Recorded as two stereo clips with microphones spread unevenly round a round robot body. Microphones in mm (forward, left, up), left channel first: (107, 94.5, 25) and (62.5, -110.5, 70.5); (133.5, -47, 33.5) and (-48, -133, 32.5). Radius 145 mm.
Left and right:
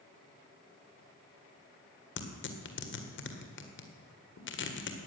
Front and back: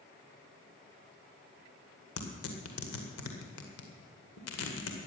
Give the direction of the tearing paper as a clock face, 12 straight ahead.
10 o'clock.